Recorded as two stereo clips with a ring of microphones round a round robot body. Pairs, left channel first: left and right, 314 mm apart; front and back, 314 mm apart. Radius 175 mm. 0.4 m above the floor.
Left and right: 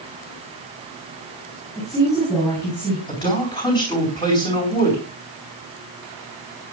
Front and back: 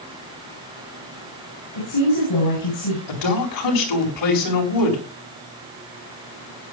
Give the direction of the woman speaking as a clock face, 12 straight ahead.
12 o'clock.